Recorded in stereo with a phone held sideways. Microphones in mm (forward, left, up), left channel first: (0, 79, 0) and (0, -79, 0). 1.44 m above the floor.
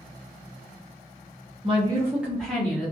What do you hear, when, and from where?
1.6 s a woman speaking: 35° right (ahead or behind), 0.7 m; by 2.9 s 20° left (ahead or behind), 1.0 m